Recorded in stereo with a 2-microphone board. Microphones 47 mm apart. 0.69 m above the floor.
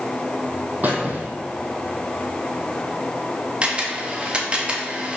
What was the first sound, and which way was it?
A squeak, 40° right (ahead or behind).